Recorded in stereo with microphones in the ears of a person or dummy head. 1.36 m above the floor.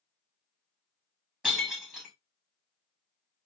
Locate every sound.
1.4 s breaking glass: 5° right (ahead or behind), 1.1 m